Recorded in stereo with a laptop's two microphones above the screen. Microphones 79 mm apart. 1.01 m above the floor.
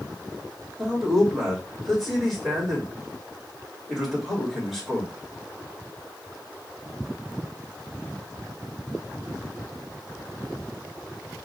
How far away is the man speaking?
About 2 m.